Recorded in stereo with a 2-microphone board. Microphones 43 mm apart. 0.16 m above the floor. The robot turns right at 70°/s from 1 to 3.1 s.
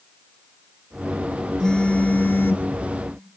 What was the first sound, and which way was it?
A phone buzzing, 20° left.